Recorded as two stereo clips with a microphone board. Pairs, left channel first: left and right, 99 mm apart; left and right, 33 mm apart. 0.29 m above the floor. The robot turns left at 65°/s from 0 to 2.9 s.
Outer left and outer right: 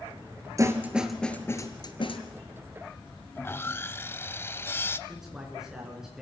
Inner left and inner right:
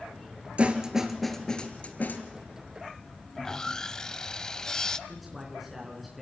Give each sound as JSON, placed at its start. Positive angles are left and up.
{"t": 0.6, "sound": "a snare drum", "side_deg": -35, "distance_m": 1.8}
{"t": 3.4, "sound": "sawing", "side_deg": 25, "distance_m": 0.6}
{"t": 5.1, "sound": "a man speaking", "side_deg": -5, "distance_m": 4.5}